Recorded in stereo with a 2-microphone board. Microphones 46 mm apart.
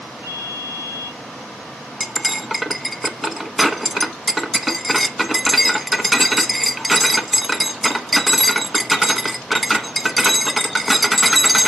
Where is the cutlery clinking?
Centre (ahead or behind), 0.6 m.